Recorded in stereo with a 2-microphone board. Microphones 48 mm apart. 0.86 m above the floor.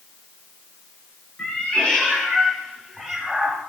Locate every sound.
1.4 s a cat meowing: 25° left (ahead or behind), 7 m; by 3.6 s centre (ahead or behind), 6.5 m